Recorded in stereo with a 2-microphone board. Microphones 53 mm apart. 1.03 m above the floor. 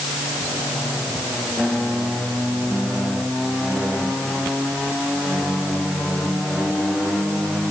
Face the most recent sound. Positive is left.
No sound to turn to.